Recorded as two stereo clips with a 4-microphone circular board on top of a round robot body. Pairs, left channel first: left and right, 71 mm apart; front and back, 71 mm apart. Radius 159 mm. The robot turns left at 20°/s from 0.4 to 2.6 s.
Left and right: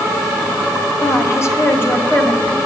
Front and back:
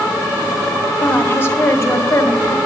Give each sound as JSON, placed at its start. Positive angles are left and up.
{"t": 1.0, "sound": "a woman speaking", "azimuth_deg": 60, "distance_m": 1.7}